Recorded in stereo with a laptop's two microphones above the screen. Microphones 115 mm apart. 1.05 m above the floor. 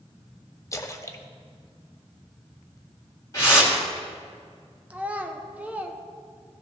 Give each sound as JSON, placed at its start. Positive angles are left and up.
{"t": 0.7, "sound": "a splash", "side_deg": 25, "distance_m": 0.5}
{"t": 3.3, "sound": "a whoosh", "side_deg": 30, "distance_m": 2.0}
{"t": 4.9, "sound": "a child speaking", "side_deg": -10, "distance_m": 0.6}